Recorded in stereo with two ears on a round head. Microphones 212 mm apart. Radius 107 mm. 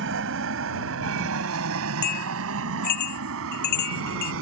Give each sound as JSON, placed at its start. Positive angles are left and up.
{"t": 0.0, "sound": "an aircraft", "side_deg": -55}
{"t": 2.0, "sound": "a bell", "side_deg": 80}